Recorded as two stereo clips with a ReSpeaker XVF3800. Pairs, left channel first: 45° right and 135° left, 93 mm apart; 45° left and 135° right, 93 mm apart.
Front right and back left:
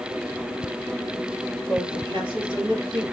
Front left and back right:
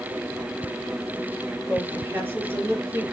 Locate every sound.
1.7 s a woman speaking: 160° left, 5 m